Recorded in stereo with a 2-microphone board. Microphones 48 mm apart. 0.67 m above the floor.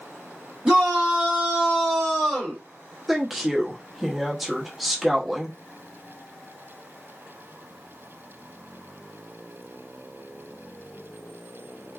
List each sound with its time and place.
0.7 s a shout: 15° right (ahead or behind), 1.5 m; by 2.6 s 5° left (ahead or behind), 1.3 m
3.1 s a woman speaking: 5° right (ahead or behind), 0.7 m